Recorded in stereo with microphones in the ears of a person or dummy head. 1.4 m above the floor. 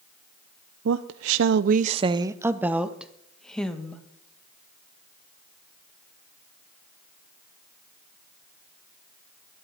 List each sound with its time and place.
0.8 s a woman speaking: 75° right (ahead or behind), 0.6 m; by 4.0 s 10° left (ahead or behind), 1.7 m